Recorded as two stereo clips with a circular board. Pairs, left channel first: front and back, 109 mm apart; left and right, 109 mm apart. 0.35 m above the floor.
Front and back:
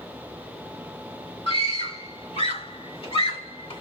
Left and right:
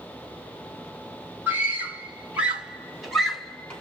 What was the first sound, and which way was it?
A scream, 20° right.